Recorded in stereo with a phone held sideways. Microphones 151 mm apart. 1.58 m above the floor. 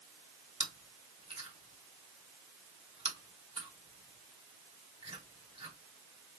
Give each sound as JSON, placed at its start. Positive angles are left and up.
{"t": 0.6, "sound": "chewing", "side_deg": -40, "distance_m": 1.4}